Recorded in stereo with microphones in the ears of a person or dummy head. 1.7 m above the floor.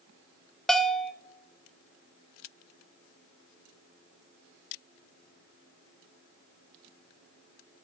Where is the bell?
5° left (ahead or behind), 0.8 m.